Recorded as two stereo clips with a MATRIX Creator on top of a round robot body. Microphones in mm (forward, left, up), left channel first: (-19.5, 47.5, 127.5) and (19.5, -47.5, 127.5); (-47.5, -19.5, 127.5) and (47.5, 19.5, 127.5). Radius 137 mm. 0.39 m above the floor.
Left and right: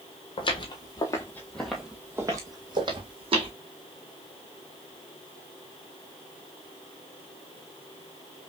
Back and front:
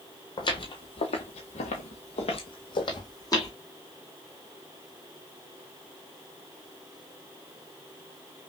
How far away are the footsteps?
About 1.0 m.